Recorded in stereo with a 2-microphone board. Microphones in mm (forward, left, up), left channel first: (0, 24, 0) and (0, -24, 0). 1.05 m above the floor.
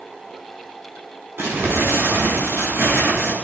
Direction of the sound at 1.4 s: 65° right (ahead or behind).